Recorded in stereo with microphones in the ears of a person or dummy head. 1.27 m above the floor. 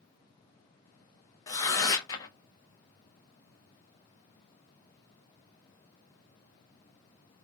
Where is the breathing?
No breathing in this recording.